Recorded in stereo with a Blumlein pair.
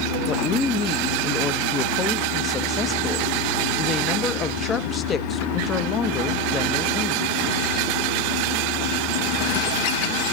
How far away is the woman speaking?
About 0.8 m.